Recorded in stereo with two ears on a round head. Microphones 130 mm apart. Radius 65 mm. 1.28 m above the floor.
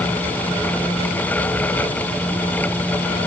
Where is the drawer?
No drawer in this recording.